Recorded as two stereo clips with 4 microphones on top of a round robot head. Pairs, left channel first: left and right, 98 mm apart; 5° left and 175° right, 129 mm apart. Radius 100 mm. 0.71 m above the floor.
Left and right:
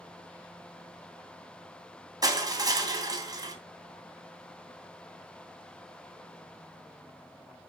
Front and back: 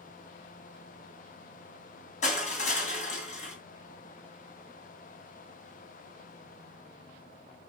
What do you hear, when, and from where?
2.2 s crushing: 40° right, 2.5 m